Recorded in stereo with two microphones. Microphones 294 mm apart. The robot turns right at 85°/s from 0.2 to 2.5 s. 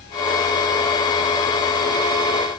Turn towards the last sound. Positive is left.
No sound to turn to.